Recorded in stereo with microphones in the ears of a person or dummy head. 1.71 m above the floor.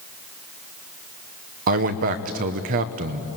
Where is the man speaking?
55° right (ahead or behind), 1.1 m.